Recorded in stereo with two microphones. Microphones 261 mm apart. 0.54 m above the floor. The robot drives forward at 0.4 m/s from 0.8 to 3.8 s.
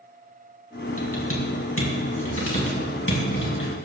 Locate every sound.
1.0 s typing on a keyboard: 60° left (ahead or behind), 4 m; by 3.7 s 50° left (ahead or behind), 4.5 m